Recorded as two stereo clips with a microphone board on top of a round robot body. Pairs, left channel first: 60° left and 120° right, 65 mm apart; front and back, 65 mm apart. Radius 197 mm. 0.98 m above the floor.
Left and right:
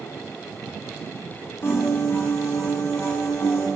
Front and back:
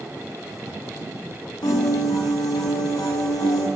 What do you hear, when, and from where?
1.6 s a piano: straight ahead, 0.6 m